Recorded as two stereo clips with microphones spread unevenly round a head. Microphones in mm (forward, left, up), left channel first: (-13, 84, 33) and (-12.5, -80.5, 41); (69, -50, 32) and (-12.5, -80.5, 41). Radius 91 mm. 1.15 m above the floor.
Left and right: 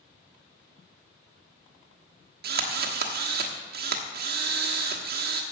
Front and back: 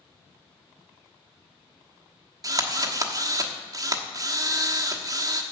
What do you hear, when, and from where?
2.4 s a drill: 120° right, 1.2 m